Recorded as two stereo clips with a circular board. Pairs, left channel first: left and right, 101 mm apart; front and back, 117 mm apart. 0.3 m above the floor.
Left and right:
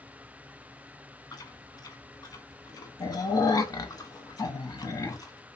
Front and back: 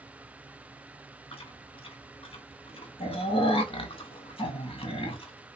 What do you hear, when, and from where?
1.3 s chewing: 35° left, 0.5 m